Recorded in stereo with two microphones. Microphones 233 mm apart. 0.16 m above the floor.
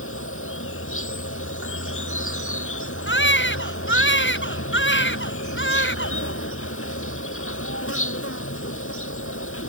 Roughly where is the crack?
No crack in this recording.